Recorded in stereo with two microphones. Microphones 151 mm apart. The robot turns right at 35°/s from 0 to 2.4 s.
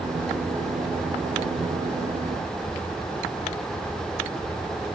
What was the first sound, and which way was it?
Only background noise.